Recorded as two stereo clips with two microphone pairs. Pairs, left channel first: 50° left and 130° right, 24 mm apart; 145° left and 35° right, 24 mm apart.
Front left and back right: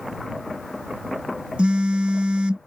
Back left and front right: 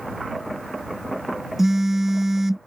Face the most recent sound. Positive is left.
turn(degrees=-110)